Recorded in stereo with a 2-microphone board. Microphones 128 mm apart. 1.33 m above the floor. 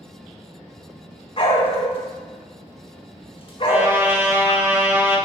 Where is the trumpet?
15° right (ahead or behind), 1.4 m.